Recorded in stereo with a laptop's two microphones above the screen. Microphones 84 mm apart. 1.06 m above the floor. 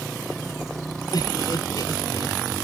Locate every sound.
0.0 s a motorcycle: centre (ahead or behind)
1.1 s laughter: 55° left (ahead or behind)